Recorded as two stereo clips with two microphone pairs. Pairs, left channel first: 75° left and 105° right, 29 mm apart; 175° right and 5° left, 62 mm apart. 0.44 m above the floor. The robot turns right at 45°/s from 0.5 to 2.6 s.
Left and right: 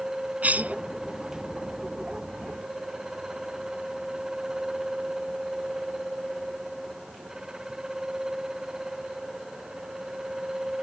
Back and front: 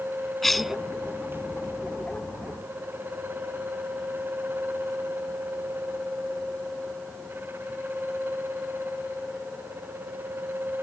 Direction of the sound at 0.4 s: 90° right.